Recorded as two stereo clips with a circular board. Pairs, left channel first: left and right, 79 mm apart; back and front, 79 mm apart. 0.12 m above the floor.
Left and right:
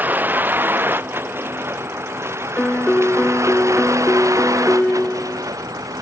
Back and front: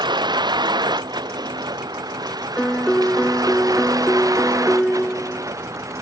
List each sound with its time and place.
0.0 s a vehicle: 20° right; by 6.0 s 45° right
2.6 s a piano: 125° left